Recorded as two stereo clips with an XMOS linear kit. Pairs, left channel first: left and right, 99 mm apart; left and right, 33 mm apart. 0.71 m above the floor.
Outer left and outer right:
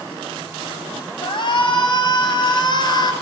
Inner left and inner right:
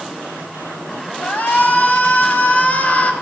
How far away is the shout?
About 5.5 m.